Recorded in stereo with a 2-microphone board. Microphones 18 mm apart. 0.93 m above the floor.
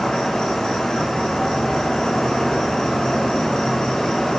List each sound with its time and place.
0.0 s an insect: 65° left (ahead or behind), 4 m